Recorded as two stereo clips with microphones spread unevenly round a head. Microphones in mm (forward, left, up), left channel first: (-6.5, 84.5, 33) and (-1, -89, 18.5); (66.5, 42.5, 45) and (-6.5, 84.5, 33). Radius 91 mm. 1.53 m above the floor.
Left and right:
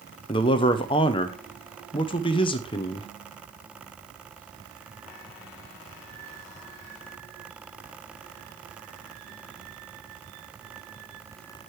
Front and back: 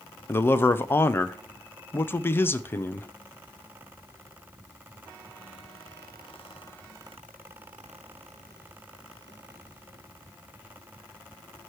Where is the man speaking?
30° left, 0.6 m.